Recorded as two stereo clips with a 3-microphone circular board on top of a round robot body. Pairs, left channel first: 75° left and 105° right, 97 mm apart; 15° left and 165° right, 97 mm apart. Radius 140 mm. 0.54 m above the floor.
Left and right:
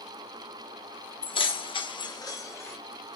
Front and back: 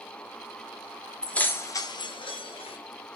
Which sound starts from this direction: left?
Keys jangling, at 1.2 s.